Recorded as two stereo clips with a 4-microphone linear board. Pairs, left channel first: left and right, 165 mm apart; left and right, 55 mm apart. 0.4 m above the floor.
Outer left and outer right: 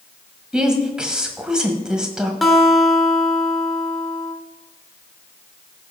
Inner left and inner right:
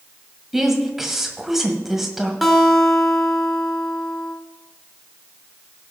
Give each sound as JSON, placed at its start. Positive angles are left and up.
{"t": 0.5, "sound": "a woman speaking", "side_deg": -5, "distance_m": 1.8}
{"t": 2.4, "sound": "a guitar", "side_deg": 0, "distance_m": 1.4}